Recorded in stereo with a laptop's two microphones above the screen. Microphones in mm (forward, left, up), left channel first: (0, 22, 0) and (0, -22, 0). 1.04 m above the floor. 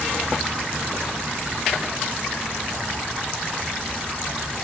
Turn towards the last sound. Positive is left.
No sound to turn to.